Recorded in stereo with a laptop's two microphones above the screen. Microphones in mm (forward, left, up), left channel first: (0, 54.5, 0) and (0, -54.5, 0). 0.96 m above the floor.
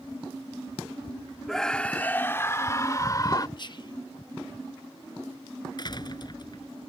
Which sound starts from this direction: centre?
A scream, at 1.5 s.